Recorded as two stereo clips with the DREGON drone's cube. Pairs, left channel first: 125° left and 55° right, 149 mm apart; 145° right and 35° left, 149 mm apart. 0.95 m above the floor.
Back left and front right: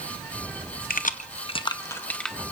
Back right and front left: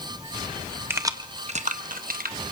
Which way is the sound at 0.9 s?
110° left.